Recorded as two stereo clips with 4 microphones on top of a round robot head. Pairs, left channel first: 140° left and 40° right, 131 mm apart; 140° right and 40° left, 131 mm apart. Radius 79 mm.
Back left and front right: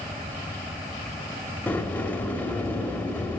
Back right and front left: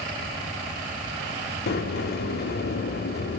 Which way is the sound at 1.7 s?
140° right.